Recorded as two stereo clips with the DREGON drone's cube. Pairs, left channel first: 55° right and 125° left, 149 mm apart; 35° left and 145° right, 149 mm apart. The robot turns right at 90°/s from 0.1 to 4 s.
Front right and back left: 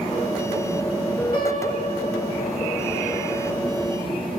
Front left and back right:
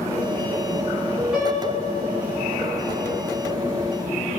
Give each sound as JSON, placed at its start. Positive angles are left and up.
{"t": 1.3, "sound": "a piano", "azimuth_deg": 130, "distance_m": 1.8}